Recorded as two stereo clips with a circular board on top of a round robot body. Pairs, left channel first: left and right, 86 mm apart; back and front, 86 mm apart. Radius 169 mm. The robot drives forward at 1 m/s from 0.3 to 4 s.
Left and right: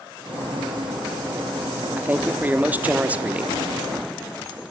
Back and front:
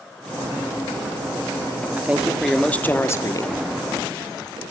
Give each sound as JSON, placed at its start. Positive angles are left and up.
{"t": 2.0, "sound": "a man speaking", "azimuth_deg": -45, "distance_m": 1.5}